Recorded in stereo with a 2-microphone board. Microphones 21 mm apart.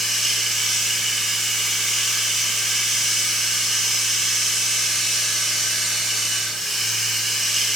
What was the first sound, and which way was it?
Running water, centre (ahead or behind).